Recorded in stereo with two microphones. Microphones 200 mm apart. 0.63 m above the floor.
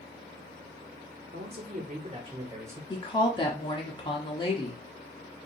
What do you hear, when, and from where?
1.3 s a man speaking: 60° right (ahead or behind), 1.4 m; by 2.8 s 10° right (ahead or behind), 1.9 m
2.9 s a woman speaking: 25° left (ahead or behind), 1.0 m